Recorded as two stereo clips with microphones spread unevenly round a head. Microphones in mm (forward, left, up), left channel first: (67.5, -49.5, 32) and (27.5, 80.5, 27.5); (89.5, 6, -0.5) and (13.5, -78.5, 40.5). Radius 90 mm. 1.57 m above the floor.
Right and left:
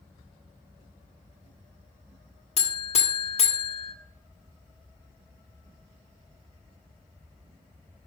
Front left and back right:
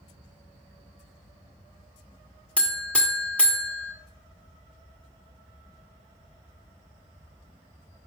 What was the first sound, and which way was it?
A buzzer, 35° right.